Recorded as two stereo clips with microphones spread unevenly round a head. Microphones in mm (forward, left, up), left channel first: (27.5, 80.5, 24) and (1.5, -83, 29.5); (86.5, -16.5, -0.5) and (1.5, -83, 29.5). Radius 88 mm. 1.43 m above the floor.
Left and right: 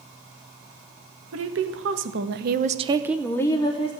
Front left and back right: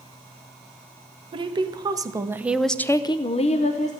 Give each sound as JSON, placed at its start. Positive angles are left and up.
{"t": 1.3, "sound": "a woman speaking", "azimuth_deg": -100, "distance_m": 1.5}